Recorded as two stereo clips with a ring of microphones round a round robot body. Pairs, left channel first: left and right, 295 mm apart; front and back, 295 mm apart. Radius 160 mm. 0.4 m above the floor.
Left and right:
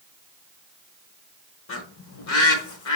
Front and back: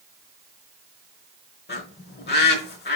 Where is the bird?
55° left, 1.2 m.